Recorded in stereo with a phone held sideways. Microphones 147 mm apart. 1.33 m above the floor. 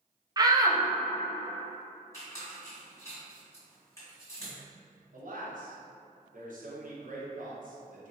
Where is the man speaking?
65° right (ahead or behind), 1.0 m.